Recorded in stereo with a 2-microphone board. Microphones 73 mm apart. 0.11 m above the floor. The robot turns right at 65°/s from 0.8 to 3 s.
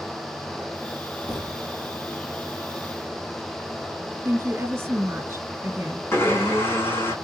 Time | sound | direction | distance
1.3 | a thud | 65° left (ahead or behind) | 2 m
4.2 | a woman speaking | 35° right (ahead or behind) | 2.0 m
6.1 | a blender | 35° left (ahead or behind) | 4.5 m